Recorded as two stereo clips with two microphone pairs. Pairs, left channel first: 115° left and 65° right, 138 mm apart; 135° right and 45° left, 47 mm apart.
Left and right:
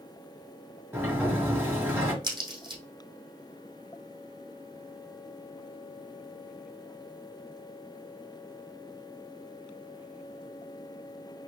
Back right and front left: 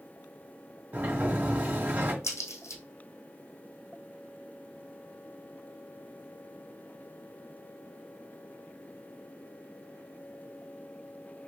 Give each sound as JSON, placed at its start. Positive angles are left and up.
{"t": 0.9, "sound": "a sliding door", "azimuth_deg": 10, "distance_m": 2.0}
{"t": 2.2, "sound": "a crack", "azimuth_deg": -120, "distance_m": 2.5}